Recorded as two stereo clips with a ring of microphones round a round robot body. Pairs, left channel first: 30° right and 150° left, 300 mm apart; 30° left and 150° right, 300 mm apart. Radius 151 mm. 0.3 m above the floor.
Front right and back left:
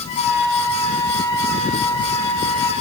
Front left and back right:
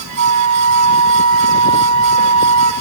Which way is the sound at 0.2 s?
45° right.